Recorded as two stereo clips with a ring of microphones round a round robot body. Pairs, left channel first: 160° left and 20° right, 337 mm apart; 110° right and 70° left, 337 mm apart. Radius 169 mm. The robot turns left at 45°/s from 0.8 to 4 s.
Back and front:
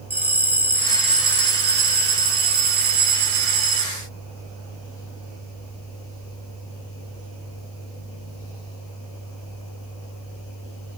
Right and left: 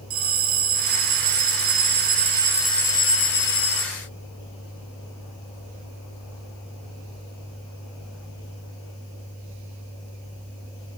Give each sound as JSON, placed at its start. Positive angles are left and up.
{"t": 0.1, "sound": "a bell", "azimuth_deg": 60, "distance_m": 2.5}